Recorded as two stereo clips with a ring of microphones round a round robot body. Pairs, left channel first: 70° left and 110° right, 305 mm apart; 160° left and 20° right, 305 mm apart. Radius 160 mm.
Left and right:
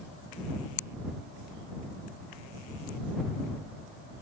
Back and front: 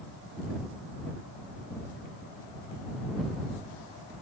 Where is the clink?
No clink in this recording.